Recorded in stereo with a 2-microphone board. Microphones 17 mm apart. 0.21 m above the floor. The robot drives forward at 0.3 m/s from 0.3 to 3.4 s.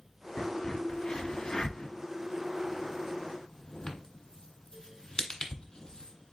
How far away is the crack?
About 1.2 m.